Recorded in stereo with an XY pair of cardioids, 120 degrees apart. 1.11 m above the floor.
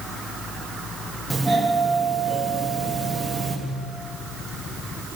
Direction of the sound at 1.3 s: 10° right.